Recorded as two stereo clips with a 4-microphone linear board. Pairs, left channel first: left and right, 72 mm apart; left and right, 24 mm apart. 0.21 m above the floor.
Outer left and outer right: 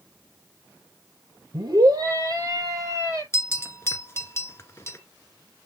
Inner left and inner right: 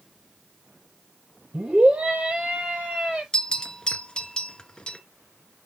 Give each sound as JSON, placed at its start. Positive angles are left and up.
{"t": 1.5, "sound": "a scream", "side_deg": -55, "distance_m": 6.0}
{"t": 3.3, "sound": "a bell", "side_deg": 35, "distance_m": 1.6}